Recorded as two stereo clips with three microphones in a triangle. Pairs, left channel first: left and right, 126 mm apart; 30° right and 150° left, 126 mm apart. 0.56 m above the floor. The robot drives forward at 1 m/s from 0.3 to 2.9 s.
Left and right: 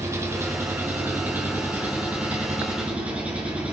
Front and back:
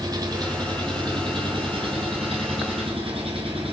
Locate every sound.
0.0 s an engine running: 155° right, 2.5 m; by 3.7 s 170° right, 4.5 m